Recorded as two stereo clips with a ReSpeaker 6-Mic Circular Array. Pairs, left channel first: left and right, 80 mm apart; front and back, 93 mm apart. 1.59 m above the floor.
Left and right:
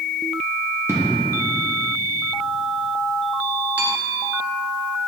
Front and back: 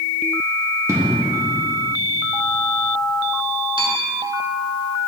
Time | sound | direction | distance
0.9 | an explosion | 135° right | 1.2 m
3.8 | a bell | 160° right | 1.3 m